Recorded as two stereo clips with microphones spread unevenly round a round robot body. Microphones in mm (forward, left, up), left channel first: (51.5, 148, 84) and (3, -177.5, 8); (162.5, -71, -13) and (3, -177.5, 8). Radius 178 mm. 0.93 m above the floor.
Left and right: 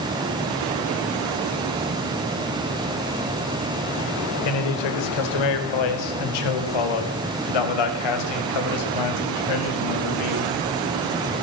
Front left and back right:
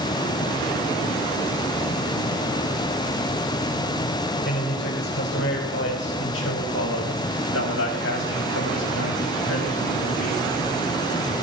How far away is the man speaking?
About 3.5 m.